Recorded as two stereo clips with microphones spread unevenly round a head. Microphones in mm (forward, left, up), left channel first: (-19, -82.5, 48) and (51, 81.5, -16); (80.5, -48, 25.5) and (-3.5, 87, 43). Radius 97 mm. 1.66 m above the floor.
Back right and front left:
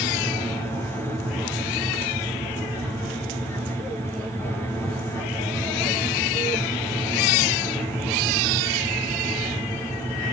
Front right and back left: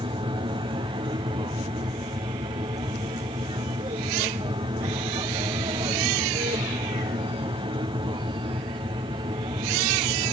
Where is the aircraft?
135° left.